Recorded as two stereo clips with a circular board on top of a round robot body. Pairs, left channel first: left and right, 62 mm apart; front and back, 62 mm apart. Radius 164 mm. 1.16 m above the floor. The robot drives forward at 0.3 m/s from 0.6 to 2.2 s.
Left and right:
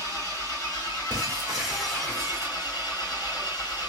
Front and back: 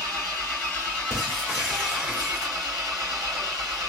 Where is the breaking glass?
90° right, 1.0 m; by 2.8 s 120° right, 1.1 m.